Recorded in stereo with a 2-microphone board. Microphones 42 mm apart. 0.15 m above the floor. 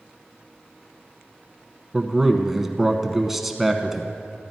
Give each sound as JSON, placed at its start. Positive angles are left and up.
{"t": 1.9, "sound": "a man speaking", "side_deg": -5, "distance_m": 1.0}